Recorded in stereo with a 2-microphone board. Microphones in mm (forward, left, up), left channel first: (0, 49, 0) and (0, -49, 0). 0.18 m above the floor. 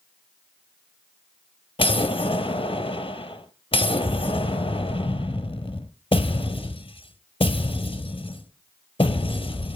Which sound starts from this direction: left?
An explosion, at 1.8 s.